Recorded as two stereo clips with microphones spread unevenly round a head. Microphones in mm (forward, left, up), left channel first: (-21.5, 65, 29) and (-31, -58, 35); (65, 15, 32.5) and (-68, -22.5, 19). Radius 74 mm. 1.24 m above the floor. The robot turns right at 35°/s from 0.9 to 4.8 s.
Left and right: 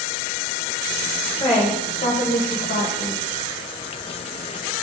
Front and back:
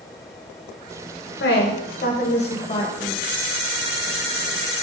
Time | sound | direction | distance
1.4 | a woman speaking | 25° left | 0.9 m